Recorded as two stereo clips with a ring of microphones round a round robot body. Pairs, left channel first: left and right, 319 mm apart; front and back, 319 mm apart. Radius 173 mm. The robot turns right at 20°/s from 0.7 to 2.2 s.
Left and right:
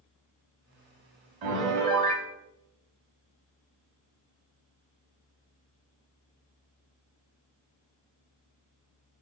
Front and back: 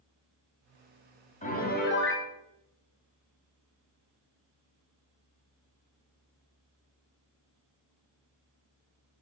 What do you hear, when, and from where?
1.4 s a piano: 70° right, 1.1 m; by 2.3 s 50° right, 1.1 m